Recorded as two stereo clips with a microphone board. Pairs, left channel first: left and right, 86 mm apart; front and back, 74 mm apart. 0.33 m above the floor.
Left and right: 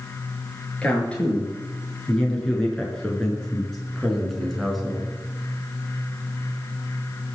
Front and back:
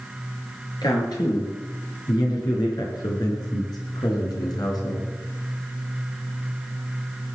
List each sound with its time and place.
0.8 s a man speaking: 15° left, 7 m; by 5.1 s 5° right, 4.5 m